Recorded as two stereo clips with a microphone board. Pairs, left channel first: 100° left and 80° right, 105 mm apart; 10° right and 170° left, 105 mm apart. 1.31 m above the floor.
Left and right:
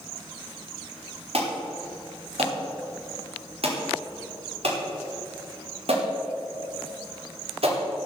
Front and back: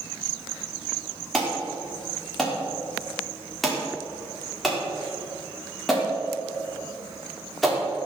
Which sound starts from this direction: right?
An alarm, at 1.3 s.